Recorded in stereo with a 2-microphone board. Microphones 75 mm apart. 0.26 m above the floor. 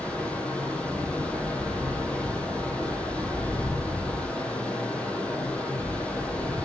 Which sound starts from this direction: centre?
Running water, at 0.0 s.